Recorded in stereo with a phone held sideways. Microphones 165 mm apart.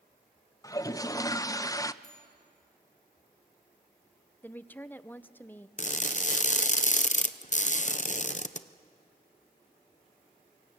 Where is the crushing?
50° left (ahead or behind), 0.8 m.